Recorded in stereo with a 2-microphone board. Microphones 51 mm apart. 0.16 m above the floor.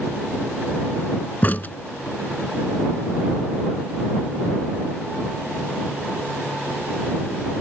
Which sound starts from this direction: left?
A crack, at 1.4 s.